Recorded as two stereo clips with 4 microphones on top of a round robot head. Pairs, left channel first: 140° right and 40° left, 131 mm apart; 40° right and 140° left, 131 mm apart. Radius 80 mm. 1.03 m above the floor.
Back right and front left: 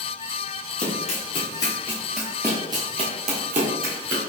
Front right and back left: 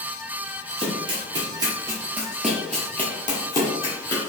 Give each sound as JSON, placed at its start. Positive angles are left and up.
{"t": 0.8, "sound": "running footsteps", "azimuth_deg": -170, "distance_m": 1.5}